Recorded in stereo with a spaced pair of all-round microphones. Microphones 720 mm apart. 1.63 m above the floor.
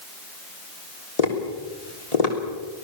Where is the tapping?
55° left (ahead or behind), 3.5 m.